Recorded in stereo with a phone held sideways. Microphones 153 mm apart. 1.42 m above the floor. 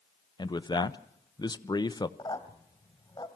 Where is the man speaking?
30° left (ahead or behind), 0.6 m.